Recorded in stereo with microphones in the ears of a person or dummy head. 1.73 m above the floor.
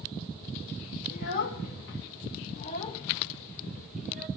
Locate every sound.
1.1 s a child speaking: 65° left (ahead or behind), 1.3 m; by 4.3 s 10° right (ahead or behind), 1.2 m